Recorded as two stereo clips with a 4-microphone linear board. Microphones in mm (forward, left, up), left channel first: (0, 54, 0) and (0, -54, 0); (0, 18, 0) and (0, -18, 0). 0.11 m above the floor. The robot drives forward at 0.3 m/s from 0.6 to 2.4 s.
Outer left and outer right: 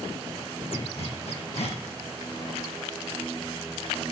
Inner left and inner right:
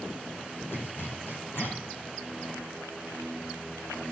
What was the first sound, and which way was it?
A zipper, 75° left (ahead or behind).